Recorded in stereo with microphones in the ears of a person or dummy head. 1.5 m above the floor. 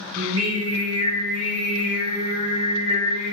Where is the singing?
25° right (ahead or behind), 0.6 m.